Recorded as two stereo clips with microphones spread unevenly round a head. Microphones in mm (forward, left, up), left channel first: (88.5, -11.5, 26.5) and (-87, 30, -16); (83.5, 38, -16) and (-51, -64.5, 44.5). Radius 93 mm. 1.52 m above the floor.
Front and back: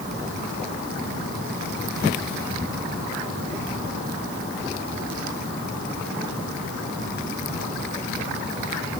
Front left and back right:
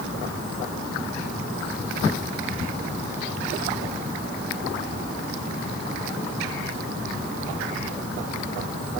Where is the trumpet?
No trumpet in this recording.